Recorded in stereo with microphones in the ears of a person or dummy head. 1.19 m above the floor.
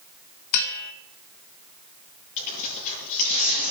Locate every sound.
0.5 s a bell: 80° left, 1.4 m
2.4 s tearing paper: 40° left (ahead or behind), 9 m